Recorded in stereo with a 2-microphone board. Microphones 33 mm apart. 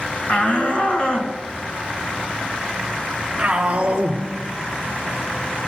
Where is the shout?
40° left (ahead or behind), 2.0 m; by 4.2 s 25° right (ahead or behind), 2 m.